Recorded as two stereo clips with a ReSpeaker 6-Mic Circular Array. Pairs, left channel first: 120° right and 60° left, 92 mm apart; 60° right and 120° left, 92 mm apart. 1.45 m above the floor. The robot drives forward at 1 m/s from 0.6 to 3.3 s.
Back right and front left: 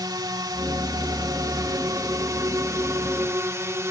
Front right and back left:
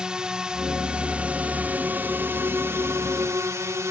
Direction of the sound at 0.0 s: 40° left.